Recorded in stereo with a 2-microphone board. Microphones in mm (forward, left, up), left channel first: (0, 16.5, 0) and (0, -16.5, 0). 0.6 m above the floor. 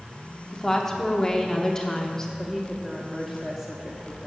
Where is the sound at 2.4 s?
10° right (ahead or behind), 1.1 m.